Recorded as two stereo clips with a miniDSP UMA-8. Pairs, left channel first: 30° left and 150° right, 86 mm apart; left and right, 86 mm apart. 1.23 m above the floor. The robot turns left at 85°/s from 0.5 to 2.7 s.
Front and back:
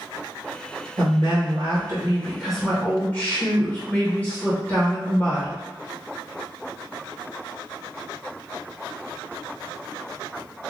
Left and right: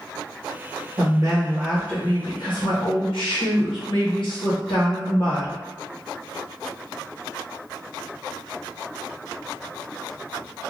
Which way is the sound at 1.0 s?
115° right.